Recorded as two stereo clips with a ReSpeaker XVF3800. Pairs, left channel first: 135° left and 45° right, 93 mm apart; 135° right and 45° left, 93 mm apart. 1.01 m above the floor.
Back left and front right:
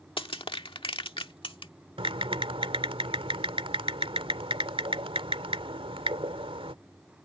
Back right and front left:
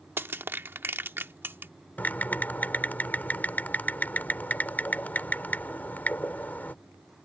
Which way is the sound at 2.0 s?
65° right.